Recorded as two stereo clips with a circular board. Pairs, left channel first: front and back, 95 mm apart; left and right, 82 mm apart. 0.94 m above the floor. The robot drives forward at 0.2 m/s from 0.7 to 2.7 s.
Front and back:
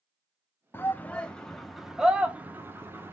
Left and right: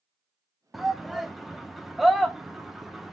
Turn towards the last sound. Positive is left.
turn(degrees=-175)